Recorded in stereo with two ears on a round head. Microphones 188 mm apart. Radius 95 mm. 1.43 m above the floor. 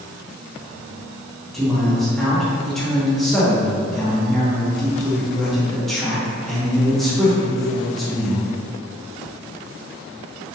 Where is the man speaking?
Centre (ahead or behind), 0.8 m.